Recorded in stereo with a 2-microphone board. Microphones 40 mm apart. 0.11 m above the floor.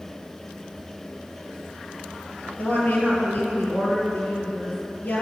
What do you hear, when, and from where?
2.6 s a woman speaking: 45° left (ahead or behind), 2.5 m